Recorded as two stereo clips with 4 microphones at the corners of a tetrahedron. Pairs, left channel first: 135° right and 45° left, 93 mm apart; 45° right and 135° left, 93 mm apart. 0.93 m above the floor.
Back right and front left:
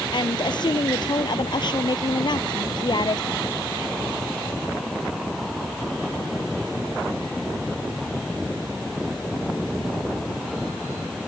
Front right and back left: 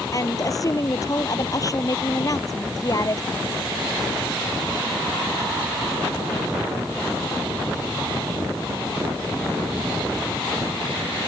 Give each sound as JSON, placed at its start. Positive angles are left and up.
{"t": 0.1, "sound": "a woman speaking", "azimuth_deg": -95}